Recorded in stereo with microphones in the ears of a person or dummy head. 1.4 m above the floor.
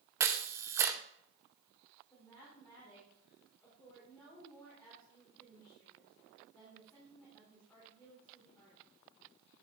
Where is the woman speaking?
10° left (ahead or behind), 4 m.